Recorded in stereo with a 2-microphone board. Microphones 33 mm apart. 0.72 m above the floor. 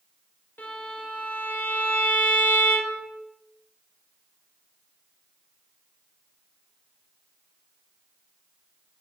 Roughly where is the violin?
Left.